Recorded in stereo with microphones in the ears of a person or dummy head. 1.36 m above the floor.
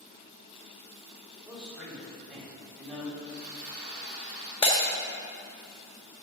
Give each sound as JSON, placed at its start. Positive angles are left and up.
{"t": 1.4, "sound": "a man speaking", "side_deg": 5, "distance_m": 3.5}
{"t": 3.2, "sound": "sawing", "side_deg": -10, "distance_m": 4.0}
{"t": 4.6, "sound": "breaking glass", "side_deg": 30, "distance_m": 1.4}